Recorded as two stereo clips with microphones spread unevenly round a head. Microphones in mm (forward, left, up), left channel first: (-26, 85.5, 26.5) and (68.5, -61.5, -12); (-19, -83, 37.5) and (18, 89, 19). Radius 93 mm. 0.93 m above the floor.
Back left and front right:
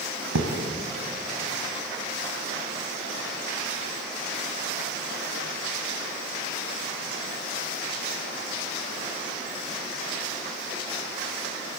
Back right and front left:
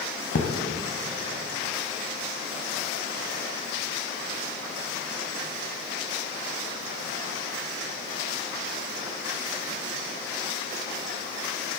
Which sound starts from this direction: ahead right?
A thud, at 0.3 s.